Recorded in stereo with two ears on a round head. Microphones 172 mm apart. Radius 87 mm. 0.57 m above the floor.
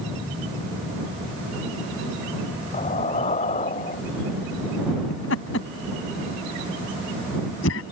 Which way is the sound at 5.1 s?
75° left (ahead or behind).